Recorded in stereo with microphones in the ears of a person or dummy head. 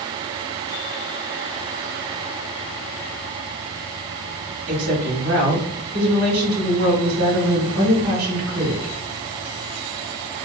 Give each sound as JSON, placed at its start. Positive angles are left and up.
{"t": 4.7, "sound": "a woman speaking", "side_deg": -55, "distance_m": 1.3}